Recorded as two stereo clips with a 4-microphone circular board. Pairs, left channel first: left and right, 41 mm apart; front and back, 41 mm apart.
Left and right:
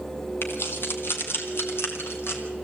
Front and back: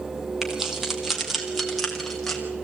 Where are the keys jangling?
100° left, 2.5 m; by 2.4 s 80° left, 3 m.